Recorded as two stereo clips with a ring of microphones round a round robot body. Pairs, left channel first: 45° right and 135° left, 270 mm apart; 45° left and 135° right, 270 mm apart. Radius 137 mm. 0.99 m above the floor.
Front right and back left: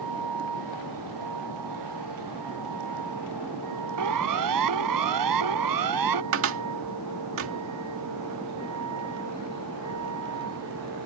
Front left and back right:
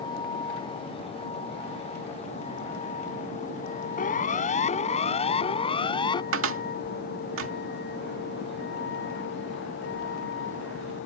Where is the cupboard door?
Straight behind.